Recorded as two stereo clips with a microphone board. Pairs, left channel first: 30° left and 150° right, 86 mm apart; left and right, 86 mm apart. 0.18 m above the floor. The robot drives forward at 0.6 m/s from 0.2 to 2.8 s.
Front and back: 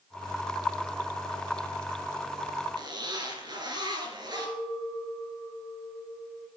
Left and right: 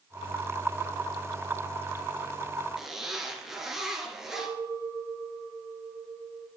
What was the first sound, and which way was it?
A zipper, 175° right.